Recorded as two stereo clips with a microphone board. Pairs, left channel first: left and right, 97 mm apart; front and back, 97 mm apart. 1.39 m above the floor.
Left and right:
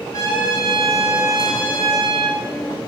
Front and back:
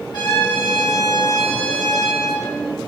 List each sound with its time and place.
0.1 s a trumpet: 35° left, 8.5 m